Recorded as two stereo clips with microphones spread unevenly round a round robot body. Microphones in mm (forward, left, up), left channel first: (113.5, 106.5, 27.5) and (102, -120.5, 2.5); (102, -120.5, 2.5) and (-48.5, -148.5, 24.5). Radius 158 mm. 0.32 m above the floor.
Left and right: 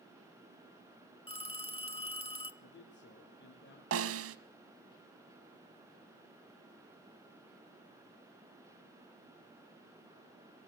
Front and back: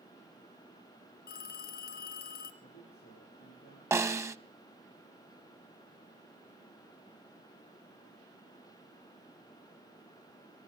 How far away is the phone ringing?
About 2.5 m.